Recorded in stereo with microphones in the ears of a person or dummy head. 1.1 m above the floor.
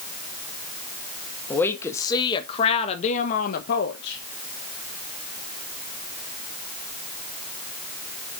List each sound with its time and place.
1.5 s a woman speaking: 20° left (ahead or behind), 1.7 m; by 4.2 s 65° left (ahead or behind), 1.2 m